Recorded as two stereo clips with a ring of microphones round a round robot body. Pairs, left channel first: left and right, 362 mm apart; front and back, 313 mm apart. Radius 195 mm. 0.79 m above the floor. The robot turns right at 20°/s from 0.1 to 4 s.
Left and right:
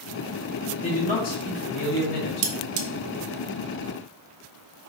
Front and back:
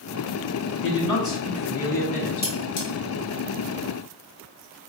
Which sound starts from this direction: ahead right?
Cutlery clinking, at 2.4 s.